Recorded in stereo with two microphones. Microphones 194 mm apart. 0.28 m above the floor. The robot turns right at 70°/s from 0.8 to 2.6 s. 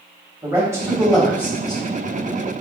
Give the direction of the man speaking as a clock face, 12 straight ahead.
1 o'clock.